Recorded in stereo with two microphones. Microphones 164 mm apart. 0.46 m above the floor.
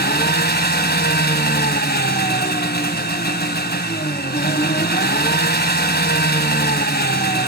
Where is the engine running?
80° left, 1.4 m.